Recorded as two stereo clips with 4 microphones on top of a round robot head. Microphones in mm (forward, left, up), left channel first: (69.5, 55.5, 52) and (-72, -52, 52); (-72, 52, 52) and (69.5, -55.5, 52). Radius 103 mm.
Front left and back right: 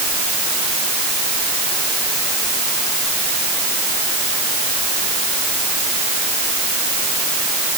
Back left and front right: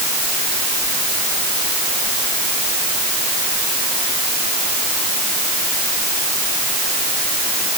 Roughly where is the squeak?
I don't hear a squeak.